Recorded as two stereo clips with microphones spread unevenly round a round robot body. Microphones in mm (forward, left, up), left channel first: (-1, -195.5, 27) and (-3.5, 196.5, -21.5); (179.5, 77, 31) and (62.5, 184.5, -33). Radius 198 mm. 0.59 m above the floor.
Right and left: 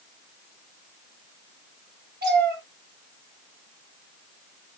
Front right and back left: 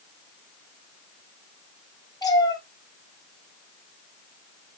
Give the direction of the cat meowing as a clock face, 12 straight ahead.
11 o'clock.